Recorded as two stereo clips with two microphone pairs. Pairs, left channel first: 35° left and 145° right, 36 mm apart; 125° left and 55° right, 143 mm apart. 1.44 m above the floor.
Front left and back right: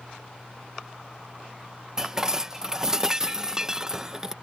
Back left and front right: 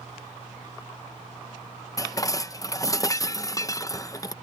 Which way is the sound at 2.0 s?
170° left.